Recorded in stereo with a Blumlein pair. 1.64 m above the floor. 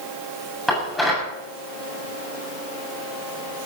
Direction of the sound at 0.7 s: 5° left.